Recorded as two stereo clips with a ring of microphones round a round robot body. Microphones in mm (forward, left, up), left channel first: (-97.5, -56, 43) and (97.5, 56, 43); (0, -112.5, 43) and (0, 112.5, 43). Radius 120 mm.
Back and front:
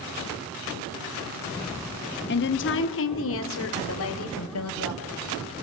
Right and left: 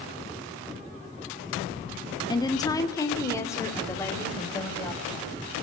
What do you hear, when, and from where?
2.3 s a woman speaking: 155° right, 1.6 m; by 5.3 s 170° right, 5 m